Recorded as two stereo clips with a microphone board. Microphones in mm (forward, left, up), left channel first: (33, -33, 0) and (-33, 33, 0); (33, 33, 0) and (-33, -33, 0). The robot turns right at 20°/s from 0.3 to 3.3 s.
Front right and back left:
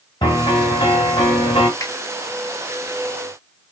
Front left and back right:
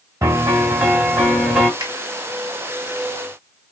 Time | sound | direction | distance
0.2 | a piano | 80° right | 2 m
1.8 | a finger snap | 90° right | 1.9 m